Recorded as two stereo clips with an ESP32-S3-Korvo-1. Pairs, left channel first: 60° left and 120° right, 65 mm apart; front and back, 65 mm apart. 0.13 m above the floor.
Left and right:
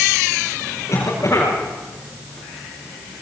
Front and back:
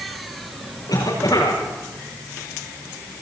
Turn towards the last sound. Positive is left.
turn(degrees=15)